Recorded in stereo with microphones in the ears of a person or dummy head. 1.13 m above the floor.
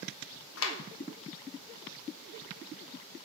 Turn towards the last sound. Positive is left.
turn(degrees=65)  # may be behind; listen again after turning